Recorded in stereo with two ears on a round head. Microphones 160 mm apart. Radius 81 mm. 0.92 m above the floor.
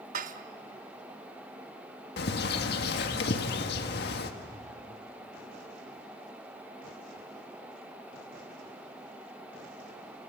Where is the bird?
65° left (ahead or behind), 1.6 m.